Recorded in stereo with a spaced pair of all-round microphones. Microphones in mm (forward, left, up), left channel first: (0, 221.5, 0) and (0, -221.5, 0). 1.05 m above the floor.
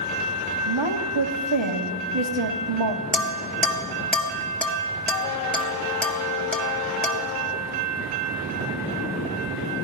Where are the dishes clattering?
Centre (ahead or behind), 1.3 m.